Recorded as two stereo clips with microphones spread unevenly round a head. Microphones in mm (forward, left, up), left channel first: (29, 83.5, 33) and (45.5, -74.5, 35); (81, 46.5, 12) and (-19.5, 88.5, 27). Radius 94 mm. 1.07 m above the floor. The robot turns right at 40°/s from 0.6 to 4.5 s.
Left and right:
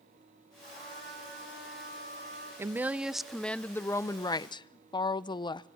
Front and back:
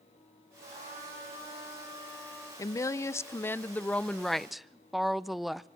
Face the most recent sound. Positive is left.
turn(degrees=60)